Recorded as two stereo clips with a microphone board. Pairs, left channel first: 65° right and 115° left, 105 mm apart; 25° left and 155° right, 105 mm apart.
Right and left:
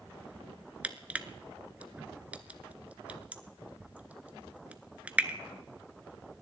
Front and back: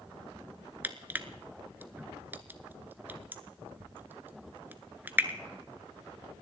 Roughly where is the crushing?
Behind.